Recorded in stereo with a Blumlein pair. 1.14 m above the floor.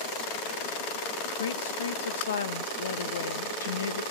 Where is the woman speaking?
70° left, 1.0 m.